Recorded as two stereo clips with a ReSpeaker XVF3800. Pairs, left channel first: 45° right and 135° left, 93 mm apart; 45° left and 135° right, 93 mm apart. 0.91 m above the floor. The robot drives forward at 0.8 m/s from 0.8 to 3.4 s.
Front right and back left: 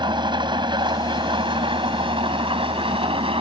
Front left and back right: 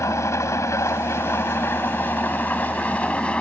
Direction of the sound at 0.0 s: 105° left.